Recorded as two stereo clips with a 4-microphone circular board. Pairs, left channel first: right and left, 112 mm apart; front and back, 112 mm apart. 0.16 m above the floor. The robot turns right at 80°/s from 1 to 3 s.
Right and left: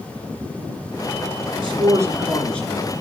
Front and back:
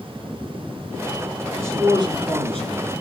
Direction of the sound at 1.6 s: 115° left.